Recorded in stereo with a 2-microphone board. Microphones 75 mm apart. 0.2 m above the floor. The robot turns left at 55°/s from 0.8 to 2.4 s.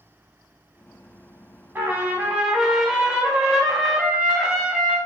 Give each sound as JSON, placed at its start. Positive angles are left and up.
{"t": 1.8, "sound": "a trumpet", "azimuth_deg": -130, "distance_m": 0.9}